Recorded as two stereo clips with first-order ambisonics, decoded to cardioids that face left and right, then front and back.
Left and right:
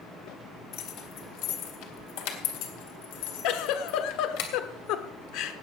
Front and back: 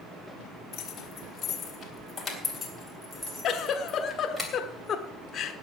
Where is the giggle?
60° left, 1.0 m.